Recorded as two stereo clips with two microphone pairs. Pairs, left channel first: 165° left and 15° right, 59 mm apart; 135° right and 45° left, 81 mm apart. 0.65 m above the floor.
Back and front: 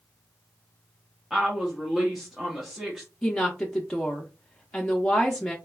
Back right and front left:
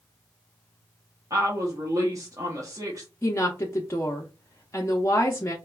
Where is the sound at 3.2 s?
125° right, 0.7 m.